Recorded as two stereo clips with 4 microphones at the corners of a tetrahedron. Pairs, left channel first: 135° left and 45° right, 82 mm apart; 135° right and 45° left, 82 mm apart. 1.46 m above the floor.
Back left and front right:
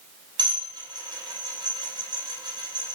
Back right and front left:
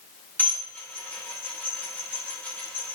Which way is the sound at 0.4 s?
65° right.